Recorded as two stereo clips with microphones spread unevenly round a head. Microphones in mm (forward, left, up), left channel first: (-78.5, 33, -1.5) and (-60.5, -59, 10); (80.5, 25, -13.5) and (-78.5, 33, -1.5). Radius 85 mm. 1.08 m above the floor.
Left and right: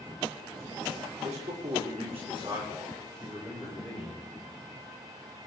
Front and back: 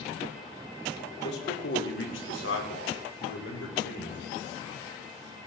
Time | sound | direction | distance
1.2 | a man speaking | 40° right | 3 m